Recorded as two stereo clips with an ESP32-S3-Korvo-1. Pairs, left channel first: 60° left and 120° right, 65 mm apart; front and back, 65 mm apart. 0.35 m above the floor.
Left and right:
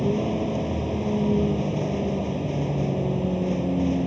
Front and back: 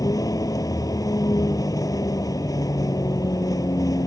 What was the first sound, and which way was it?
A vehicle, 30° right.